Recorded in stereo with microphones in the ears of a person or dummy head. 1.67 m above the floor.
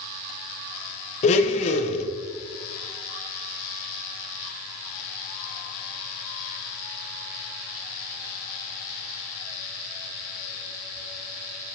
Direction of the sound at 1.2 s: 40° left (ahead or behind).